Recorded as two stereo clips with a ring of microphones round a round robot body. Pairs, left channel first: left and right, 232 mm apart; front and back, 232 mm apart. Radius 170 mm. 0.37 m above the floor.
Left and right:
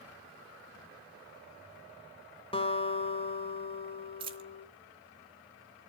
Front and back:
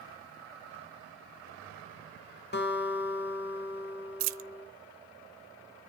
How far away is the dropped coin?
About 0.8 m.